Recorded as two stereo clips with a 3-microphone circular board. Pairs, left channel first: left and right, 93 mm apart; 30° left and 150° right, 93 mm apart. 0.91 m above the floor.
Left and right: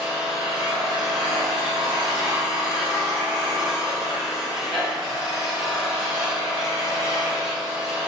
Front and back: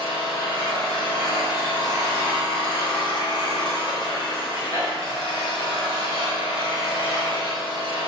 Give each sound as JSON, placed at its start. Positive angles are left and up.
{"t": 0.0, "sound": "an engine running", "azimuth_deg": -5, "distance_m": 1.1}